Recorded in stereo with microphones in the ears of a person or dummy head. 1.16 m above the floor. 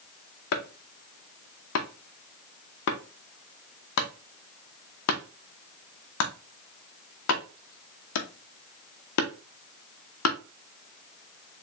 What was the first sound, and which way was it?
Chopping, 70° left (ahead or behind).